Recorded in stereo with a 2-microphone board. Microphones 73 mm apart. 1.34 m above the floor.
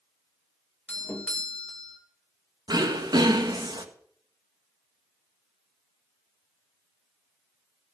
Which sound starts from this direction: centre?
A doorbell, at 0.9 s.